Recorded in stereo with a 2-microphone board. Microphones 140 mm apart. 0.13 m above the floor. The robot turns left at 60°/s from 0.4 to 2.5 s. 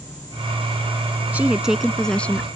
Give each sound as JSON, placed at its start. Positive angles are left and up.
{"t": 1.3, "sound": "a woman speaking", "side_deg": -10}